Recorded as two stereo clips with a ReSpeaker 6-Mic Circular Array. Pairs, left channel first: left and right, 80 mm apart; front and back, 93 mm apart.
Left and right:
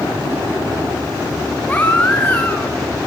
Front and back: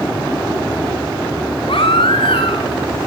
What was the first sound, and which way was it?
A baby crying, 20° left.